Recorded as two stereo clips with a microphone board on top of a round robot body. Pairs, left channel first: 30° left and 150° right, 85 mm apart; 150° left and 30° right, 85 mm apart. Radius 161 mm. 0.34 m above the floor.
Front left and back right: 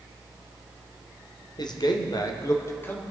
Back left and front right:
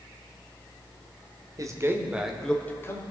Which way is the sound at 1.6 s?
10° left.